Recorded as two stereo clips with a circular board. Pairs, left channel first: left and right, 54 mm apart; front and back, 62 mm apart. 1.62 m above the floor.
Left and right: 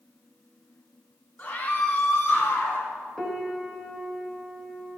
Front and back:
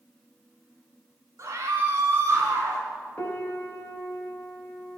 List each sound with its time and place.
1.4 s a scream: 140° left, 3 m; by 2.9 s 135° left, 4 m
3.2 s a piano: 10° left, 1.1 m